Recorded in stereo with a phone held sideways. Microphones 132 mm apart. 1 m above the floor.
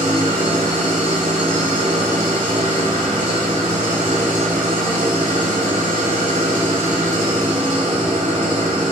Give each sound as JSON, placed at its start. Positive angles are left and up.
{"t": 0.0, "sound": "an engine running", "side_deg": -70, "distance_m": 3.0}